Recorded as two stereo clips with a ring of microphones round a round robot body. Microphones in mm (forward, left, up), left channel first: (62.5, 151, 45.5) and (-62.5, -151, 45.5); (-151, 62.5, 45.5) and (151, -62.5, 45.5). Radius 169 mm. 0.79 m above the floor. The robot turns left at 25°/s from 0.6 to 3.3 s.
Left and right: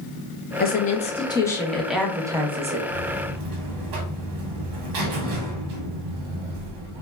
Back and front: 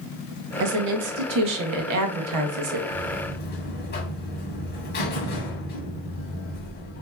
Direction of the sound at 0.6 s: 10° left.